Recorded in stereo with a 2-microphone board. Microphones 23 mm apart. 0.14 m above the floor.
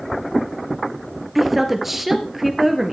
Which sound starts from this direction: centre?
A woman speaking, at 1.4 s.